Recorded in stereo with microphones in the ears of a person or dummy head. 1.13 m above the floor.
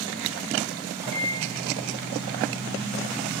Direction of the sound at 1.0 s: 20° right (ahead or behind).